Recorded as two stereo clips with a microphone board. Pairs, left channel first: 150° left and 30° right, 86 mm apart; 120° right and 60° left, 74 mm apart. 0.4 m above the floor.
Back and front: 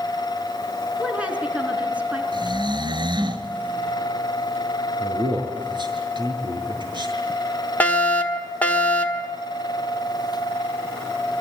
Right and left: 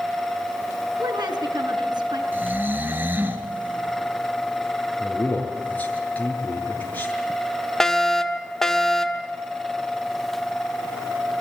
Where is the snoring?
5° right, 2 m.